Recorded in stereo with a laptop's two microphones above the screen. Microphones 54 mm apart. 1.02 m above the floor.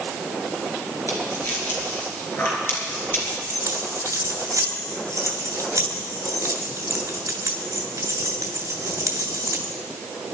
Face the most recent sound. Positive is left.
turn(degrees=-90)